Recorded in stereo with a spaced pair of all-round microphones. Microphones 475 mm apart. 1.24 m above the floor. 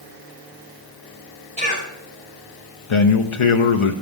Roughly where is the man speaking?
Left.